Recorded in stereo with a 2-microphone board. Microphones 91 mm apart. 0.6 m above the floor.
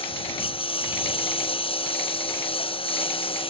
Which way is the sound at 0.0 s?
85° left.